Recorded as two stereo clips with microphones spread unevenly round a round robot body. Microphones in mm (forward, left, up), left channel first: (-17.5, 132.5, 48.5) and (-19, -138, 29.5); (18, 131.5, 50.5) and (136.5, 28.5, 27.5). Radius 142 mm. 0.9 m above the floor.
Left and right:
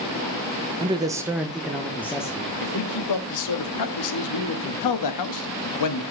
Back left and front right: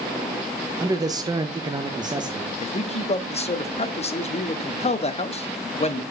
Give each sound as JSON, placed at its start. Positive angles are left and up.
{"t": 0.8, "sound": "a man speaking", "azimuth_deg": -50, "distance_m": 0.8}
{"t": 2.6, "sound": "a man speaking", "azimuth_deg": 90, "distance_m": 1.2}